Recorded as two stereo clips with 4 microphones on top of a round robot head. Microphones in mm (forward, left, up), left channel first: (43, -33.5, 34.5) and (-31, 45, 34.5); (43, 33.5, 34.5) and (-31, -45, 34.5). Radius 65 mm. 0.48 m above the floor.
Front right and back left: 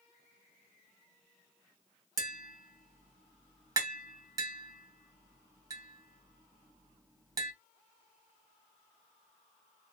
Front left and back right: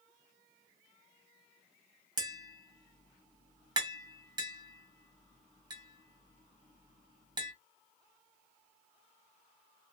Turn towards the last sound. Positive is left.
turn(degrees=-175)